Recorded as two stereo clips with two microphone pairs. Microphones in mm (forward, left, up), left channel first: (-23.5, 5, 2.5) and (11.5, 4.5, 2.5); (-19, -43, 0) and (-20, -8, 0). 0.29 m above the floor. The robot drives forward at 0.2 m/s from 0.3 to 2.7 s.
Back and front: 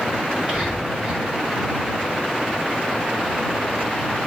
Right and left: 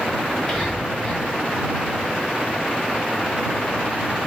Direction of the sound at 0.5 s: 5° left.